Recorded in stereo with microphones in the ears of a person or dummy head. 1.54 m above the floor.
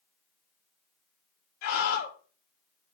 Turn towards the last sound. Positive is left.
turn(degrees=55)  # may be behind; listen again after turning